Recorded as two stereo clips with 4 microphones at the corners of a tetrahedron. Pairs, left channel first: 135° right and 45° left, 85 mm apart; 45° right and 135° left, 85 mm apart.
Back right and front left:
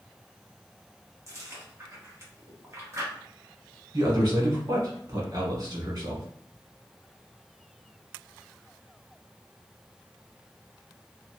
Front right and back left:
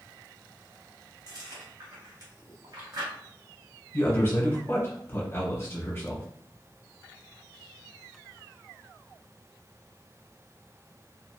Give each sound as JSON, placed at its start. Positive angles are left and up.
{"t": 1.3, "sound": "chewing", "azimuth_deg": 100, "distance_m": 1.0}
{"t": 3.9, "sound": "a man speaking", "azimuth_deg": 15, "distance_m": 1.2}